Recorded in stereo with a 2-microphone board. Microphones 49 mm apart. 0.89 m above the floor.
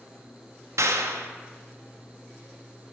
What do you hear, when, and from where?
0.8 s a clap: 75° right (ahead or behind), 0.7 m